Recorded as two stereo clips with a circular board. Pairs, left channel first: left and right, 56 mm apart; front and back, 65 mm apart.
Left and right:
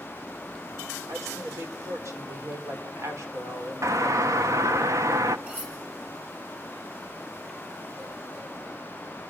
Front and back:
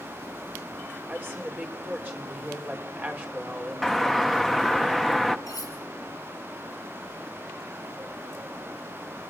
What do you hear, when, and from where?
1.1 s a woman speaking: 120° right, 4 m
3.8 s a doorbell: 90° right, 1.0 m
5.5 s cutlery clinking: 30° right, 7.5 m